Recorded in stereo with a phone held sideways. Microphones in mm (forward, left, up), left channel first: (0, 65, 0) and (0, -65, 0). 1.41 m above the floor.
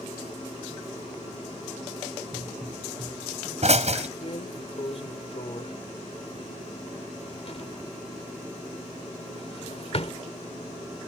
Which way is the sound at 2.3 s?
55° right (ahead or behind).